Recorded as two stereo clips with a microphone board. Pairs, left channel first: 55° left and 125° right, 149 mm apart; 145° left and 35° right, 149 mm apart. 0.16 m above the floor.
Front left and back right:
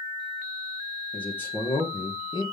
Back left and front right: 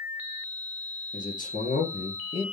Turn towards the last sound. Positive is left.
turn(degrees=105)